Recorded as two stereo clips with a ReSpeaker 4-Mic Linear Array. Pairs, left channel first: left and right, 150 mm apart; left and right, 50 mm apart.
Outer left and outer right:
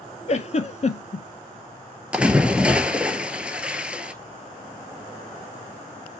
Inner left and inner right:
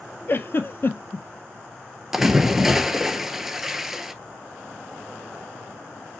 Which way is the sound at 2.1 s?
10° right (ahead or behind).